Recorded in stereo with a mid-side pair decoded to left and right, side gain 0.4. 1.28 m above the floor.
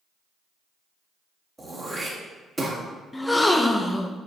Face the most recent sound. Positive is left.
turn(degrees=15)